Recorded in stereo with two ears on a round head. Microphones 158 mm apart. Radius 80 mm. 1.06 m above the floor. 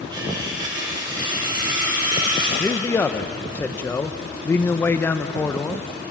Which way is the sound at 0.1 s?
25° right (ahead or behind).